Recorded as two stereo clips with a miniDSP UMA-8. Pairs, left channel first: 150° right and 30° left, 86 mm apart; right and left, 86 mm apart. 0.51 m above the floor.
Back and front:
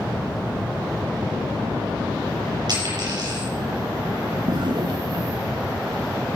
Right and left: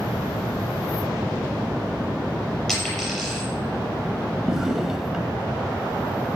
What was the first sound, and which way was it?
A dropped coin, straight ahead.